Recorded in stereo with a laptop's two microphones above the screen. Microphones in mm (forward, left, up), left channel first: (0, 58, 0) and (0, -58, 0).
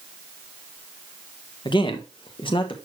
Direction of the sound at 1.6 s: 45° left (ahead or behind).